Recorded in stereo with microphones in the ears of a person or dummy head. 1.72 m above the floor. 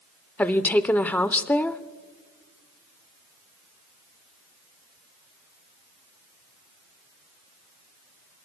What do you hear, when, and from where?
0.4 s a woman speaking: 5° left (ahead or behind), 0.7 m